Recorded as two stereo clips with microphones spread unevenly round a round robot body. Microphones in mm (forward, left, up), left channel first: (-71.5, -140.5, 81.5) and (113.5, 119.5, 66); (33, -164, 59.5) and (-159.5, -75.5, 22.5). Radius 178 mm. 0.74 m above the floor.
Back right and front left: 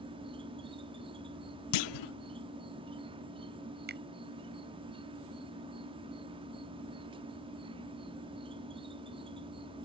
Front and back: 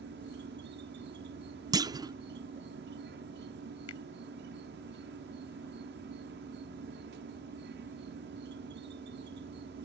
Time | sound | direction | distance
0.0 | an insect | 125° left | ?
1.7 | a clunk | 125° right | ?
3.9 | a finger snap | 5° right | ?